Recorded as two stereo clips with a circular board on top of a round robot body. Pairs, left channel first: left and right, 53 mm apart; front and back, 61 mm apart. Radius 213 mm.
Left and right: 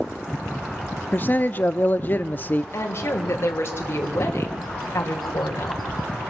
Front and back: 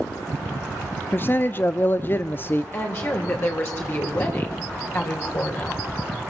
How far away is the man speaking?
About 1.0 m.